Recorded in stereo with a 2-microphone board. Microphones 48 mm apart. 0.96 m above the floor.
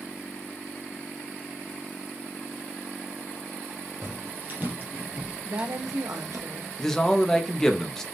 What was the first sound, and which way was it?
Footsteps, 45° right (ahead or behind).